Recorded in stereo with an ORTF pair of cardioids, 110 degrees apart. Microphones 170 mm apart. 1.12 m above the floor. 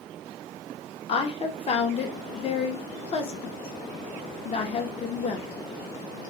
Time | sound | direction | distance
1.1 | a woman speaking | 35° left | 0.7 m